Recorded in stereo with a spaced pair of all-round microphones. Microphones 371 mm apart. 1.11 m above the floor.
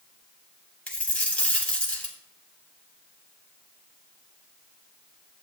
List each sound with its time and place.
0.9 s a dropped coin: 5° left (ahead or behind), 3 m